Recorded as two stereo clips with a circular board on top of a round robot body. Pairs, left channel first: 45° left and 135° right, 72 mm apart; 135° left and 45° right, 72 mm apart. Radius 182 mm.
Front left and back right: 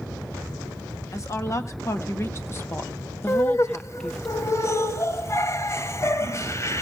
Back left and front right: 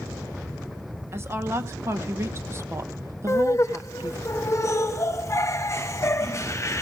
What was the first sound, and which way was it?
A woman speaking, 5° left.